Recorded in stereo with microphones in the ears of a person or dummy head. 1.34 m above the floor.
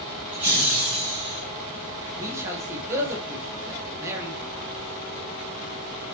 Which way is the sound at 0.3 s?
10° right (ahead or behind).